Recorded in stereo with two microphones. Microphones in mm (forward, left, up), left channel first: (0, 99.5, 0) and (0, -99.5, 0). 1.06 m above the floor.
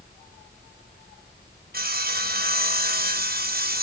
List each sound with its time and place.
1.7 s sawing: 50° right (ahead or behind), 1.3 m